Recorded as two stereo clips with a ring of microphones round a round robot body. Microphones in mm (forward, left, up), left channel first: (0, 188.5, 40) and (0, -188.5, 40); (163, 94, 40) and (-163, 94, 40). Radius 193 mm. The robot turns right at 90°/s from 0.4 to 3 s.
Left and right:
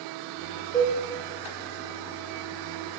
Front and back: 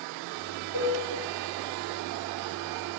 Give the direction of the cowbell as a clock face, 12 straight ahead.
12 o'clock.